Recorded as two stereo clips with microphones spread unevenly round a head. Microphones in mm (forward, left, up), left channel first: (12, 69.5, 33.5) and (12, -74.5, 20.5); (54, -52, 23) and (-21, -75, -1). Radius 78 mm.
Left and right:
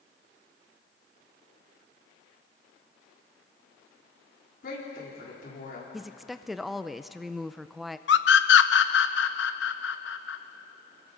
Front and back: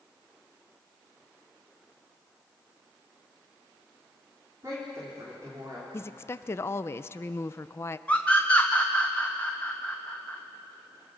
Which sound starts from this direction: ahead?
A woman speaking, at 5.9 s.